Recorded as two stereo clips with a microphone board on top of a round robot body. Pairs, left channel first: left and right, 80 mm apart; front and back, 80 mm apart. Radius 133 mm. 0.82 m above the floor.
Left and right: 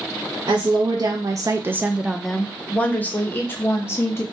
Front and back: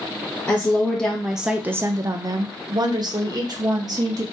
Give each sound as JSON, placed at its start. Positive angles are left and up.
{"t": 0.5, "sound": "a woman speaking", "azimuth_deg": -65, "distance_m": 0.9}